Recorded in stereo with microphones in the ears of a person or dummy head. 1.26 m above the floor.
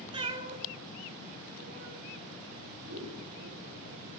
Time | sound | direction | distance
0.1 | a cat meowing | 25° right (ahead or behind) | 1.2 m
2.9 | scissors | 70° right (ahead or behind) | 5.5 m